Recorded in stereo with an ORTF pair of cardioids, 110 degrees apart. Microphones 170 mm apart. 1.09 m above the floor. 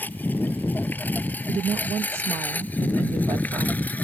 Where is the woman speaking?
35° right.